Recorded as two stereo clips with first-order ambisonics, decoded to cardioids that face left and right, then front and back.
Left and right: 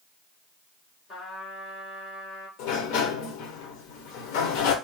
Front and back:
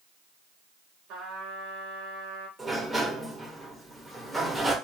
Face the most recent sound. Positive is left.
turn(degrees=100)